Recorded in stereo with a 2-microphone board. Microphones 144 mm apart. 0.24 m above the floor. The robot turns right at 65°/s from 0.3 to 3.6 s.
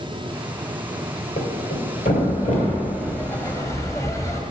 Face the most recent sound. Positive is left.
turn(degrees=20)  # may be behind; listen again after turning